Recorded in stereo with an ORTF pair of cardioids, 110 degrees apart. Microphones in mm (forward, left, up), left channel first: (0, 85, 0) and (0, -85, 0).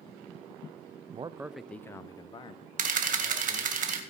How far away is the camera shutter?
About 2.0 m.